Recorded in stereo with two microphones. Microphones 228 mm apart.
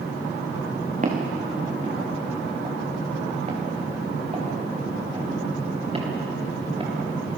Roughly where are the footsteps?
Right.